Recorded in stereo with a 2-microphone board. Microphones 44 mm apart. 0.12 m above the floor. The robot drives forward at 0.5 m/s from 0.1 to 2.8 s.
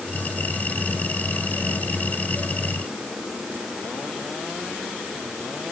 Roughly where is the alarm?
No alarm in this recording.